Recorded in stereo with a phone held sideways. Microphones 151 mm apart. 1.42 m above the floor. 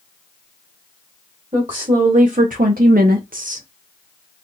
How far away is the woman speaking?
About 1.3 m.